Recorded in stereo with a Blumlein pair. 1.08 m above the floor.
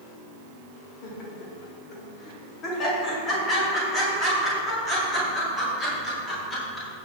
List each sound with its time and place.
1.0 s laughter: 40° left, 4.5 m; by 7.1 s 10° left, 10.5 m